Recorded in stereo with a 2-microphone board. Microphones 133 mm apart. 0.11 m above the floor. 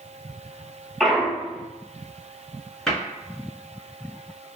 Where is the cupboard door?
5° left (ahead or behind), 1.4 m.